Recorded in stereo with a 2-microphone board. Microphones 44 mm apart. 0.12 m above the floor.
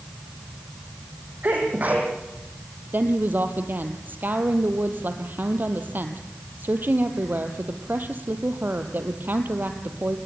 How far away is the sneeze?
About 5.5 m.